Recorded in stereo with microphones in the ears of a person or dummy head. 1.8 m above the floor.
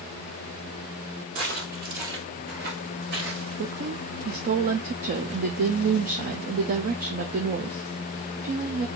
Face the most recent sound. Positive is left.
turn(degrees=-40)  # may be behind; listen again after turning